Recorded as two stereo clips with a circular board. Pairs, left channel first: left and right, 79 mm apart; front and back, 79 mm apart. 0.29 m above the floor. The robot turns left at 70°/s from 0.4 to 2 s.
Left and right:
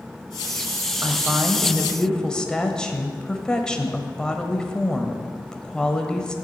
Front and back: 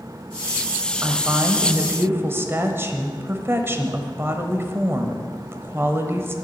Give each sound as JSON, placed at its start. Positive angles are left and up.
{"t": 1.0, "sound": "a woman speaking", "azimuth_deg": -130, "distance_m": 1.1}